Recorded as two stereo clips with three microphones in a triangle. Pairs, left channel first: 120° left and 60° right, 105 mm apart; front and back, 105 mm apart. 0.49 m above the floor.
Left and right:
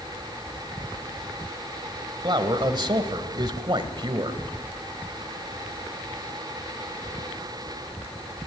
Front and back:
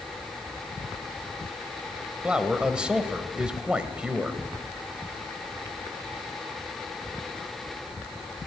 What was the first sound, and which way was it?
A man speaking, 100° right.